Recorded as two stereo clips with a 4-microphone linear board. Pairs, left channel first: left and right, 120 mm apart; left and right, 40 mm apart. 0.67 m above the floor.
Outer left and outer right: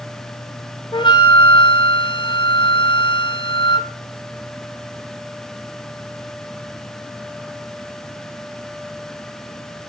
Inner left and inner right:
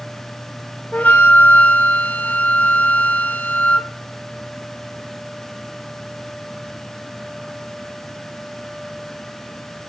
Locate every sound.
0.9 s a flute: 40° left (ahead or behind), 0.6 m